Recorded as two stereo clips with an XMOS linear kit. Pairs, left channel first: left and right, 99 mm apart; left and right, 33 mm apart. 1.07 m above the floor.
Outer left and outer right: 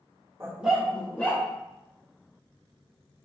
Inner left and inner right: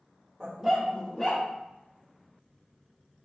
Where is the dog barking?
25° right (ahead or behind), 0.9 m; by 1.4 s 20° left (ahead or behind), 1.8 m.